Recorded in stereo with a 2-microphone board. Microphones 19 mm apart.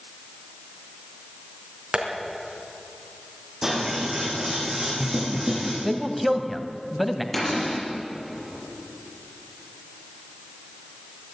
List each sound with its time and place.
1.9 s tapping: 65° right (ahead or behind), 3.5 m
3.6 s scissors: 25° right (ahead or behind), 7.5 m
5.8 s a man speaking: 5° right (ahead or behind), 1.6 m
7.3 s a cupboard door: 10° left (ahead or behind), 7 m